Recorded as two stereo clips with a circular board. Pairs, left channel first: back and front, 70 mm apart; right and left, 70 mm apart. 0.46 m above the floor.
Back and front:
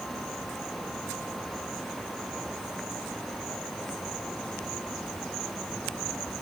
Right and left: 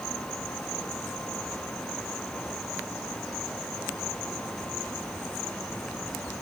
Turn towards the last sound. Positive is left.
No sound to turn to.